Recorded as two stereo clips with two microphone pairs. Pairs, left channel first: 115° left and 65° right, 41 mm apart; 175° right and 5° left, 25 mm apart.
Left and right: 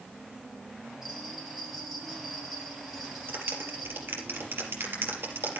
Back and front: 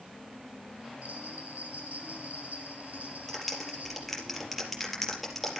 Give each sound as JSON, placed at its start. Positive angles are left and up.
{"t": 1.0, "sound": "a bell", "azimuth_deg": 15, "distance_m": 7.5}
{"t": 3.3, "sound": "a clap", "azimuth_deg": -90, "distance_m": 4.0}